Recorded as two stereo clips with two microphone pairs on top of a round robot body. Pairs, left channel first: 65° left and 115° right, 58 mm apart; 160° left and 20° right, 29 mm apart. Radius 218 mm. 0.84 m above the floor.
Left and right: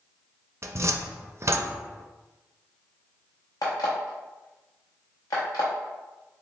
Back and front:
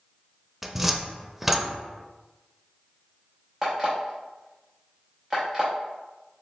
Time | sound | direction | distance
0.6 | a cupboard door | 110° right | 0.7 m
3.6 | an alarm clock | 55° left | 0.6 m